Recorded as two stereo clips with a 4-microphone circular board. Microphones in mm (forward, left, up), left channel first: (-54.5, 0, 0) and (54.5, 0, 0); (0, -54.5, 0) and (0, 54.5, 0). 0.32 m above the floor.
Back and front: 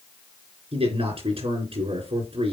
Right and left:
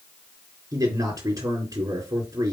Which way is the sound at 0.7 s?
35° left.